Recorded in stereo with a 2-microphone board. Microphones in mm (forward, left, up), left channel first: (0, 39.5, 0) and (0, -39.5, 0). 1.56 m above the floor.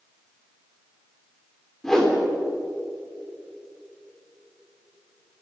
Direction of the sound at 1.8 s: 10° left (ahead or behind).